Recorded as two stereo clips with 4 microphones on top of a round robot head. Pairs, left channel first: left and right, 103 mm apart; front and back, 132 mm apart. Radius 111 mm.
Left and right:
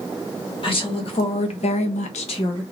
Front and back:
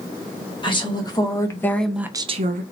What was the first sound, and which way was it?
A woman speaking, 55° left.